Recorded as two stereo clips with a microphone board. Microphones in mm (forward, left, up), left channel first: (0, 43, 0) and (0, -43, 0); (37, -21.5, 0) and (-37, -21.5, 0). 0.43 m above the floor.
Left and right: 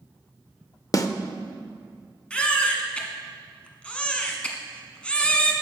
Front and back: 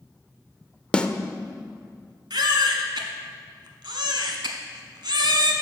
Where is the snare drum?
70° left, 0.5 m.